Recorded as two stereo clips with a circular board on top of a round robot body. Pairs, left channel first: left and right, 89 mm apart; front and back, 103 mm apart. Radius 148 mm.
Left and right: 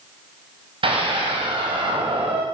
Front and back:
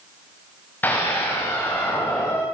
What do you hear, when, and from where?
0.8 s a scream: 75° right, 5.5 m